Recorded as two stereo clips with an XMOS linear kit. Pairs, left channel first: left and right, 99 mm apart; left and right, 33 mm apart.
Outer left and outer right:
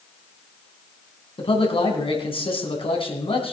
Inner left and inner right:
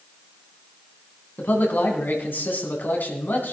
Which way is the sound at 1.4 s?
65° left (ahead or behind).